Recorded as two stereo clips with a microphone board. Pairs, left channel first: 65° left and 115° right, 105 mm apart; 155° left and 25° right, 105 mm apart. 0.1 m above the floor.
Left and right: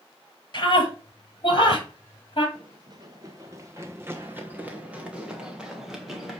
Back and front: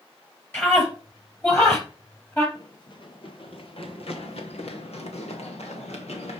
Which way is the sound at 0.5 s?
95° left.